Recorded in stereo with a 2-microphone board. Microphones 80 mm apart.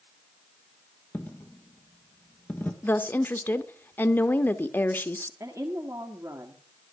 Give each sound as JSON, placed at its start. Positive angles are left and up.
{"t": 1.1, "sound": "a dropped coin", "side_deg": 20, "distance_m": 1.3}
{"t": 2.8, "sound": "a woman speaking", "side_deg": 25, "distance_m": 0.7}
{"t": 5.4, "sound": "a woman speaking", "side_deg": -40, "distance_m": 1.3}